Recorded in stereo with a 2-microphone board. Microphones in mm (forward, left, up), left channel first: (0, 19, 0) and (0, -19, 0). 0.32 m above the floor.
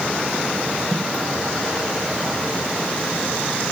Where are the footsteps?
10° right (ahead or behind), 1.8 m.